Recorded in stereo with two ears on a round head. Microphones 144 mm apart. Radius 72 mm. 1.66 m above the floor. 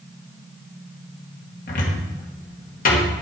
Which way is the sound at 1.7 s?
55° left (ahead or behind).